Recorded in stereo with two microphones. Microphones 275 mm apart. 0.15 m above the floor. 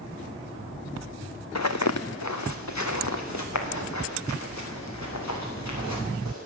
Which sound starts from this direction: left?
Footsteps, at 1.6 s.